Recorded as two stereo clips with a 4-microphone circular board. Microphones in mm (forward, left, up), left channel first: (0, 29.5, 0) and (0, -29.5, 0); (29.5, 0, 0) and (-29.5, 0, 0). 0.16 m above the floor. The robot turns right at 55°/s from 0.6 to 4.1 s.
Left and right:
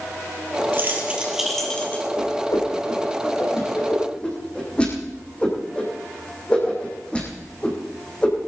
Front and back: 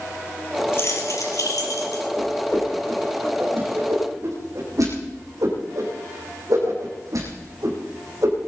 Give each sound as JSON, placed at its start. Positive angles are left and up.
{"t": 0.7, "sound": "keys jangling", "azimuth_deg": -45, "distance_m": 3.0}
{"t": 2.2, "sound": "a whoosh", "azimuth_deg": 55, "distance_m": 5.0}